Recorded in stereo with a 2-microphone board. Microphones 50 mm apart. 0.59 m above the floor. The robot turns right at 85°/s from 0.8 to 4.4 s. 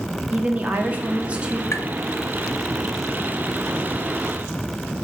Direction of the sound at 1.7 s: 60° left (ahead or behind).